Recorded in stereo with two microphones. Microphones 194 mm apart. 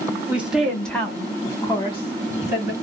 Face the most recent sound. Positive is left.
turn(degrees=40)  # may be behind; listen again after turning